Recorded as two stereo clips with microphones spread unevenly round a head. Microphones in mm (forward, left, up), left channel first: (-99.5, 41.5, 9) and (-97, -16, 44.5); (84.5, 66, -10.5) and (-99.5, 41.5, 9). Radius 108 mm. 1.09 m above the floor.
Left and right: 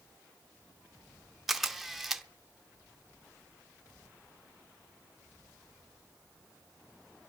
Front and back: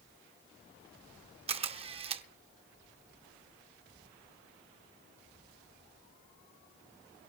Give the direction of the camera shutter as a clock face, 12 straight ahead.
4 o'clock.